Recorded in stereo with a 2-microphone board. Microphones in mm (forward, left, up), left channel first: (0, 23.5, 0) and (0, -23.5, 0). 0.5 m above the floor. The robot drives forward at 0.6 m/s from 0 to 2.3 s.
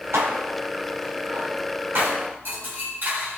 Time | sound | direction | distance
0.1 | dishes clattering | 60° right (ahead or behind) | 3 m